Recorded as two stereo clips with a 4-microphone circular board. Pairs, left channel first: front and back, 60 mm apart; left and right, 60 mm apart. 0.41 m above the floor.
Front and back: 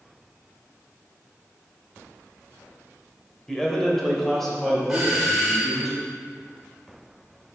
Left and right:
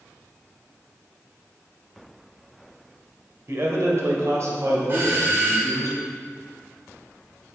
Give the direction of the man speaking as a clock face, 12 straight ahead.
3 o'clock.